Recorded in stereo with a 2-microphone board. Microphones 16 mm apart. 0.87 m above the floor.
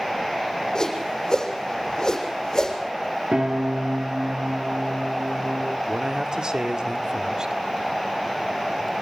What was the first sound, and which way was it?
A whoosh, 35° left (ahead or behind).